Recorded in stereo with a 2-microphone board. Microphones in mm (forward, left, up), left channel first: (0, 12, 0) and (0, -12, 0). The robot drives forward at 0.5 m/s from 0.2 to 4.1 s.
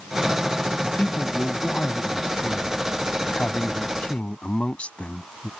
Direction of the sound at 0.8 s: 80° left.